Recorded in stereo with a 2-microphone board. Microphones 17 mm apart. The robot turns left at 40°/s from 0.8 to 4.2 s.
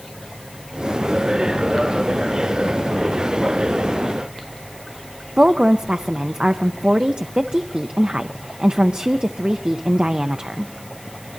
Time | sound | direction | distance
5.4 | a woman speaking | 85° right | 0.5 m